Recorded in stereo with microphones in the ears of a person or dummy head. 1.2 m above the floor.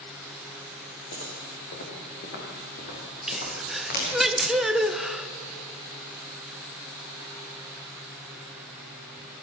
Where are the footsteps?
60° left (ahead or behind), 6 m; by 4.1 s 45° left (ahead or behind), 8.5 m.